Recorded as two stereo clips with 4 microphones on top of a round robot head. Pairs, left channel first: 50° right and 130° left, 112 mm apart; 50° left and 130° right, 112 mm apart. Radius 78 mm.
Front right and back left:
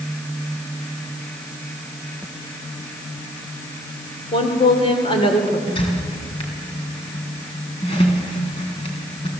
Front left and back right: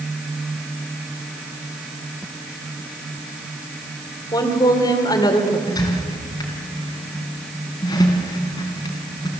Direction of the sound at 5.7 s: 5° right.